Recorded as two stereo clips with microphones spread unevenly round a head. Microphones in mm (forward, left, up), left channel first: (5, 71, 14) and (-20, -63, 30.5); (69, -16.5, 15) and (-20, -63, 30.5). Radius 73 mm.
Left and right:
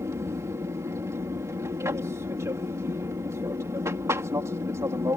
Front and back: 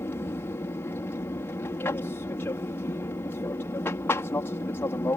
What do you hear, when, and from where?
0.0 s an aircraft: 30° right